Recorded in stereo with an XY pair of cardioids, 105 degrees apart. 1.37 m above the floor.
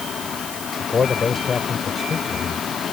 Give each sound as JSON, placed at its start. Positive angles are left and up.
{"t": 0.8, "sound": "a man speaking", "azimuth_deg": 35}